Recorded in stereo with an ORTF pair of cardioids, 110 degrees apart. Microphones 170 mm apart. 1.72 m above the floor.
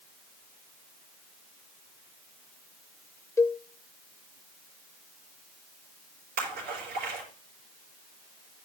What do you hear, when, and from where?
3.4 s a cowbell: 15° left, 0.6 m
6.4 s a splash: 65° right, 6.5 m